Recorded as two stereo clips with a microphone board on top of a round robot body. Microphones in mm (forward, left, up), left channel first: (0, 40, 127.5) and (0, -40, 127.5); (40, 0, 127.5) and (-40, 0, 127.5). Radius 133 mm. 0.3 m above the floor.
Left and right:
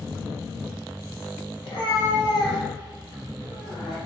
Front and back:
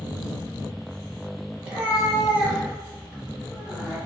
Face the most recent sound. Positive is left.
turn(degrees=105)